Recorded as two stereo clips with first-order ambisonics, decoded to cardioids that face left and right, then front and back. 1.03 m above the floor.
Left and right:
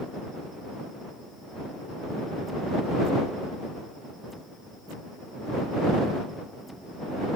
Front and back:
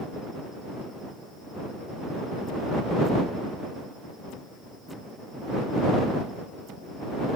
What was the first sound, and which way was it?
Only background noise.